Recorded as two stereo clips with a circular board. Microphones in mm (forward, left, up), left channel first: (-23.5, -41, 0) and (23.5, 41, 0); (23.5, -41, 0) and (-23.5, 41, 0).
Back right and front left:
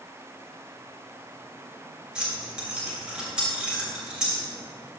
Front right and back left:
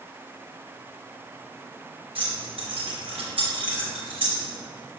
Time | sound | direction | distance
2.1 | keys jangling | 140° left | 2.5 m